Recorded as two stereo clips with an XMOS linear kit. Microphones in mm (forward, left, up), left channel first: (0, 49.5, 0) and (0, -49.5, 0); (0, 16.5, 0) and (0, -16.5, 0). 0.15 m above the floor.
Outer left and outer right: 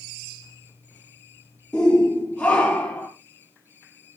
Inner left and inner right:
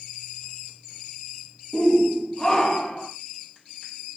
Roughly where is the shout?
Centre.